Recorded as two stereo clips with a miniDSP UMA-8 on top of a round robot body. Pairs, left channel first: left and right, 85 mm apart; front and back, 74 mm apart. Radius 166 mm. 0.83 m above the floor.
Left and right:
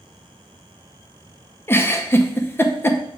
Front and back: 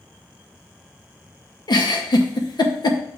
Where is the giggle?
25° left, 0.9 m.